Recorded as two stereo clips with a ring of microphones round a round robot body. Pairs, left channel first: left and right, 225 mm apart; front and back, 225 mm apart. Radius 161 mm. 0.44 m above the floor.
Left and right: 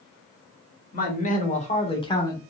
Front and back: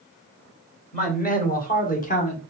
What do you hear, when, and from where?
0.9 s a man speaking: 45° left, 1.9 m; by 2.4 s 20° left, 1.3 m